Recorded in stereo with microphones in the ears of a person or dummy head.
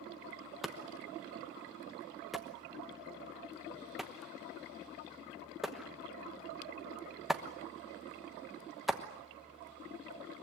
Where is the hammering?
Centre (ahead or behind), 1.1 m.